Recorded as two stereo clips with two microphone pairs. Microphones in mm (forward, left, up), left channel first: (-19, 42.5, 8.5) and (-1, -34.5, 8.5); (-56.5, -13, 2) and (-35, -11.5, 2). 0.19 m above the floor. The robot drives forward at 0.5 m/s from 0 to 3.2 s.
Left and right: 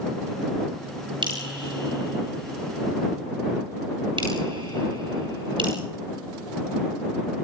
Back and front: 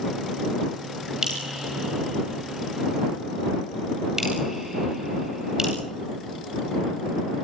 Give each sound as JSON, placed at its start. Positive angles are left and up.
{"t": 1.2, "sound": "dripping", "azimuth_deg": -65, "distance_m": 9.5}